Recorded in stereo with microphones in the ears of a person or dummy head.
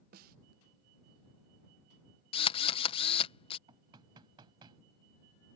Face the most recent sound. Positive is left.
turn(degrees=-25)  # may be behind; listen again after turning